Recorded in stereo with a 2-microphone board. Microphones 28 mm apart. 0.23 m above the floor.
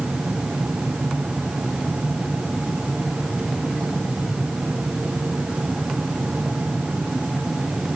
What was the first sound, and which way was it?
Only background noise.